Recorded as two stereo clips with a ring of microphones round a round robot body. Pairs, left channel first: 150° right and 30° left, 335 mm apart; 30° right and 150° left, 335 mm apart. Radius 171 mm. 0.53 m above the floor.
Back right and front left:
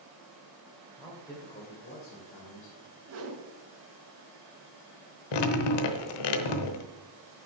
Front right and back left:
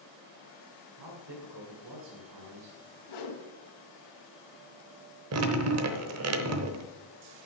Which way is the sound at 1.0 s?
115° left.